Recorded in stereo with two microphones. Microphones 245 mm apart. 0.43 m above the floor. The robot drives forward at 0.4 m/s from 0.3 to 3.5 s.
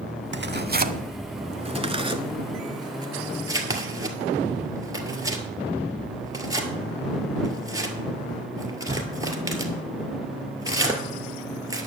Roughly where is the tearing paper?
Right.